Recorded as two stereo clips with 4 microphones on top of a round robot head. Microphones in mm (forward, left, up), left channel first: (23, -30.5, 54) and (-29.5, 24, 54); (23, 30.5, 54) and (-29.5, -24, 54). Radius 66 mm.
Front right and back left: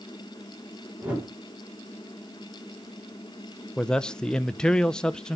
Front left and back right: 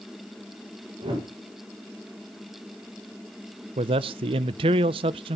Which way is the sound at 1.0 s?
155° right.